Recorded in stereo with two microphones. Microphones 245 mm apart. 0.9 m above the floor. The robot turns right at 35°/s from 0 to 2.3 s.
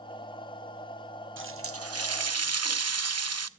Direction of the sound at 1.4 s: 125° right.